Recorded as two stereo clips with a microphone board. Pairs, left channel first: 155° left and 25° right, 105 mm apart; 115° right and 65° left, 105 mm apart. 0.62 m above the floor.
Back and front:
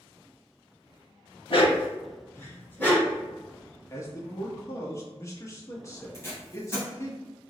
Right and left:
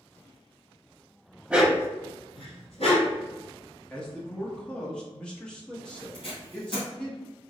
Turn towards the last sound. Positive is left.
turn(degrees=-140)